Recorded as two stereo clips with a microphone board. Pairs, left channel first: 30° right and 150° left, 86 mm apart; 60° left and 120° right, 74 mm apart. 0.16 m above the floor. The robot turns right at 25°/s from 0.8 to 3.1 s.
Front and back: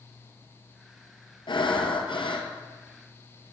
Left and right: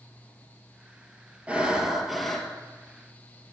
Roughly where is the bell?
I don't hear a bell.